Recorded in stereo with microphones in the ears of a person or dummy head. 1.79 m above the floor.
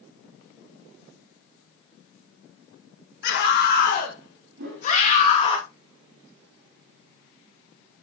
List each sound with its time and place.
3.2 s a scream: 65° left (ahead or behind), 4 m; by 5.6 s 35° left (ahead or behind), 3.5 m
4.6 s a whoosh: 55° right (ahead or behind), 4.5 m